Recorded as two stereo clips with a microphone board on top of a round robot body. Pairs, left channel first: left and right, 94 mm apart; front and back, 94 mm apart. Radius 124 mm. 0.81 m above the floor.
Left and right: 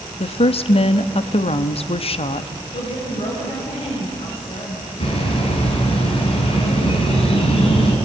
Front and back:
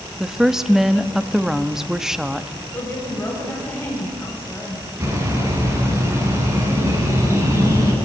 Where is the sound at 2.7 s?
70° left, 6 m.